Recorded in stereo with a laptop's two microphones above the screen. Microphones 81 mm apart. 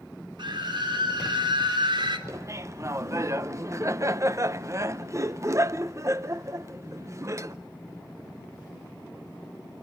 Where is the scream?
70° right (ahead or behind), 3.5 m.